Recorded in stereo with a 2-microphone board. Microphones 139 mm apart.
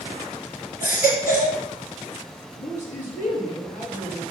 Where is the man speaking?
65° left (ahead or behind), 3 m.